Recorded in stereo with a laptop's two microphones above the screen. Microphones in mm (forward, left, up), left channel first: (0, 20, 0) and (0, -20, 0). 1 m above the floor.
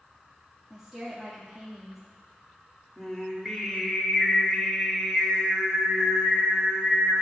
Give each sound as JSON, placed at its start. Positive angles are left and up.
{"t": 0.7, "sound": "a woman speaking", "side_deg": -5, "distance_m": 2.0}
{"t": 3.0, "sound": "singing", "side_deg": 5, "distance_m": 2.0}